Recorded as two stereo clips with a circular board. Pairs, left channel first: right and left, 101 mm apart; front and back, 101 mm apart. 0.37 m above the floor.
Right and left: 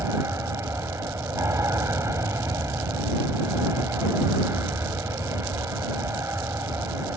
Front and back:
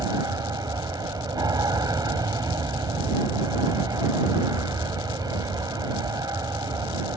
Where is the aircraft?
145° left.